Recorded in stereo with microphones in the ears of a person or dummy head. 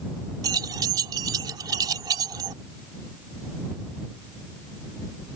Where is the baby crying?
No baby crying in this recording.